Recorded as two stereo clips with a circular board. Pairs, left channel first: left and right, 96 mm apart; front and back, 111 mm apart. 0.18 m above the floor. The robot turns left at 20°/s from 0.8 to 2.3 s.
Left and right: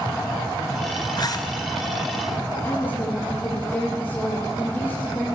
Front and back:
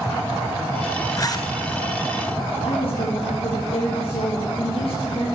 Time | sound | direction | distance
1.2 | a zipper | 50° left | 1.3 m
2.6 | a woman speaking | 20° left | 6 m